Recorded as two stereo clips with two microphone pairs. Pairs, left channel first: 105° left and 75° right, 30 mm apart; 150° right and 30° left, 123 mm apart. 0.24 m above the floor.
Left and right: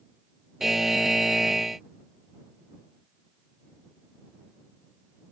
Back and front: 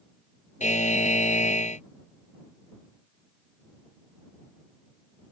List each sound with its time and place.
0.6 s a buzzer: 155° right